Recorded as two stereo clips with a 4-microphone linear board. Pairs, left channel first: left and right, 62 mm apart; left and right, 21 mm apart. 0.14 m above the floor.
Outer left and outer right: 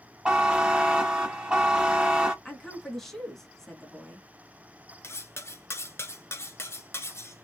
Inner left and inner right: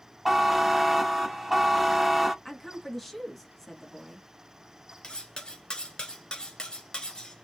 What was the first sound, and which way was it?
A buzzer, 15° right (ahead or behind).